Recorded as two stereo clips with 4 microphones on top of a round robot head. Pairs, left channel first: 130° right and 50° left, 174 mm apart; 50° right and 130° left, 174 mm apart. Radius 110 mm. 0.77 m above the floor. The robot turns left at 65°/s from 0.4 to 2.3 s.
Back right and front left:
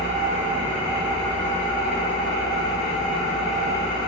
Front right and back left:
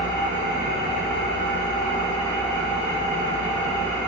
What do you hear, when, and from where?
0.0 s an engine running: 5° right, 1.2 m; by 4.1 s 130° right, 1.2 m